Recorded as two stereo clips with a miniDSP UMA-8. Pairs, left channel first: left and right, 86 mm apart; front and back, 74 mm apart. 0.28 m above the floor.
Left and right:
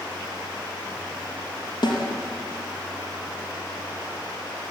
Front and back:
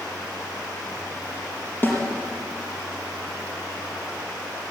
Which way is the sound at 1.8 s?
65° left.